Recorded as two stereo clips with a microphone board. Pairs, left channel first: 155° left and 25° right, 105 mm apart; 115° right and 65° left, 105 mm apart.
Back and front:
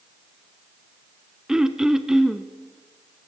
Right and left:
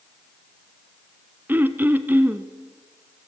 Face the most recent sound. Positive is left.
turn(degrees=50)